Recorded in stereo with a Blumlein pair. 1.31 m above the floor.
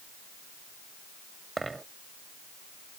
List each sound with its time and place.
1.6 s a dropped coin: 10° right